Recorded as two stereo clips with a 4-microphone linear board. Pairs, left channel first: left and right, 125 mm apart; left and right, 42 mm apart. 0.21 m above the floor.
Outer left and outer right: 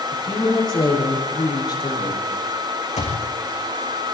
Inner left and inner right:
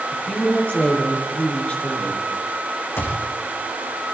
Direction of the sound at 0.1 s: 35° left (ahead or behind).